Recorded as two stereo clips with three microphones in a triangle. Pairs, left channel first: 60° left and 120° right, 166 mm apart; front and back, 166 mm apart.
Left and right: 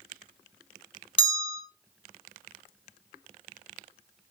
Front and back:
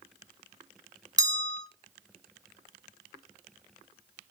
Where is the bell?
110° left, 0.7 m.